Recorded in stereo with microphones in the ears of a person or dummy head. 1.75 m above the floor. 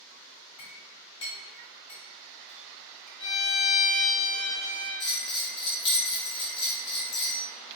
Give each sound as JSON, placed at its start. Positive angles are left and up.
{"t": 0.6, "sound": "a clink", "side_deg": 30, "distance_m": 1.6}
{"t": 3.2, "sound": "a violin", "side_deg": 55, "distance_m": 0.7}
{"t": 5.0, "sound": "a bell", "side_deg": 50, "distance_m": 0.7}